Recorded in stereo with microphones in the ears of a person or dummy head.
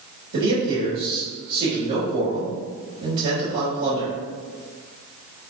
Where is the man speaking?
55° right (ahead or behind), 3 m.